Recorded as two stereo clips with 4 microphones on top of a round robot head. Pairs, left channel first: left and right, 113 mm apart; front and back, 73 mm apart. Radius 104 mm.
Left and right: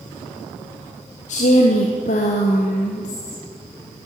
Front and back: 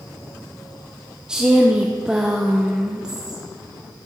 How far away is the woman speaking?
About 0.8 m.